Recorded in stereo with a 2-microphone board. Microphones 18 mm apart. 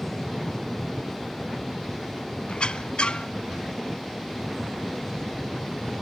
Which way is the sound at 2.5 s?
70° left (ahead or behind).